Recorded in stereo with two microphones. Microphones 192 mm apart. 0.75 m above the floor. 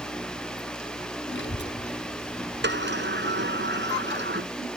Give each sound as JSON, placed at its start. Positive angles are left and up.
{"t": 1.3, "sound": "a child speaking", "side_deg": 75}
{"t": 2.6, "sound": "a sliding door", "side_deg": -70}